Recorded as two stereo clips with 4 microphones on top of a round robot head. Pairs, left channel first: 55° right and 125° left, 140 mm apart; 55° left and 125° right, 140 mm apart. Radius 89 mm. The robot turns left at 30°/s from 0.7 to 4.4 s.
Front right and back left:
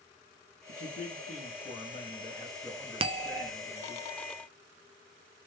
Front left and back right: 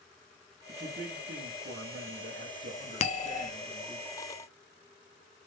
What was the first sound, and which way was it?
A man speaking, 70° right.